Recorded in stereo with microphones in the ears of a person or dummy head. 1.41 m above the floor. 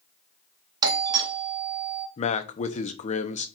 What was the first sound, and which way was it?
A doorbell, 25° right (ahead or behind).